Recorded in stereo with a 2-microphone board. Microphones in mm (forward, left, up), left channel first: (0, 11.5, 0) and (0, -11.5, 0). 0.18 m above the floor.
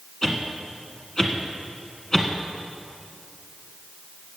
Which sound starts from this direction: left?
A whoosh, at 0.2 s.